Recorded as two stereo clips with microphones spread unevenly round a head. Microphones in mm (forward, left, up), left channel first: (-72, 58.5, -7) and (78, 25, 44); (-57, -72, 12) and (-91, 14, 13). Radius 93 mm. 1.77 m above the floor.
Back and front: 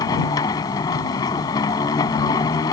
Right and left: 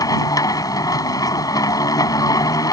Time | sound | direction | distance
0.0 | a machine running | 115° right | ?